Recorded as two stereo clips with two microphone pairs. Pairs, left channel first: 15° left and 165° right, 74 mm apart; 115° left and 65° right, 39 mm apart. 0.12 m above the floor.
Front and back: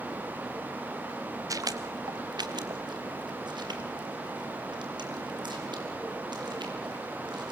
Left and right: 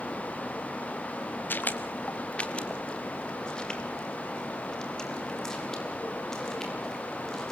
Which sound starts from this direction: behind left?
Footsteps, at 1.5 s.